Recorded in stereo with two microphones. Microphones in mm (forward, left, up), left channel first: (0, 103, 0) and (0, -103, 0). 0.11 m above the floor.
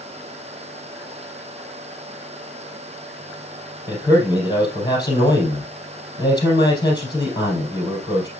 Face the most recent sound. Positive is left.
turn(degrees=20)  # may be behind; listen again after turning